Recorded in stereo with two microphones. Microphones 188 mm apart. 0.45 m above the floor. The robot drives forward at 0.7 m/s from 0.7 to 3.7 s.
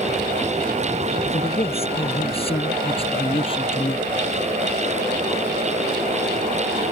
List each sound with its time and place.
1.3 s a man speaking: 35° left (ahead or behind); by 4.0 s 30° left (ahead or behind)